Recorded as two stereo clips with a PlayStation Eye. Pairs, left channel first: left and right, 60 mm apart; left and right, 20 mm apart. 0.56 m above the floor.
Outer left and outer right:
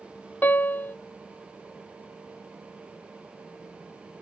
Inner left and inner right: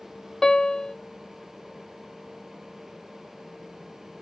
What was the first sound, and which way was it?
A piano, 35° left (ahead or behind).